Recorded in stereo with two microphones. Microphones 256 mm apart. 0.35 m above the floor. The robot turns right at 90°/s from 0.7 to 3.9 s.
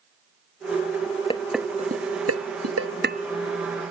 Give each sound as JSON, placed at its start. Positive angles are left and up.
{"t": 1.3, "sound": "dishes clattering", "side_deg": 20}